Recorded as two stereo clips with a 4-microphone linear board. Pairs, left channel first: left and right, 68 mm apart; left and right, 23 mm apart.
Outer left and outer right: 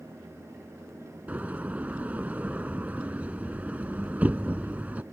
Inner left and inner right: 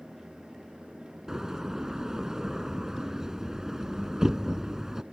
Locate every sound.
1.3 s a door slam: 25° right (ahead or behind)